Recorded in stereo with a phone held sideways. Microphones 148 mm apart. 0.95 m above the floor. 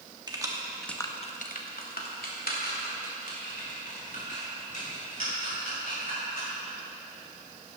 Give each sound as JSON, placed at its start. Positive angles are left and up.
{"t": 0.3, "sound": "keys jangling", "side_deg": -30, "distance_m": 1.3}